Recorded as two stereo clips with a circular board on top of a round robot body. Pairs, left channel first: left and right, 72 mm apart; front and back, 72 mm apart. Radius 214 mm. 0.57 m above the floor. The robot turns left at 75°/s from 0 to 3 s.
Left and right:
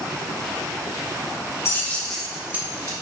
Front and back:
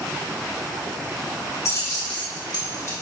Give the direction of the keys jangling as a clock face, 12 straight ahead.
11 o'clock.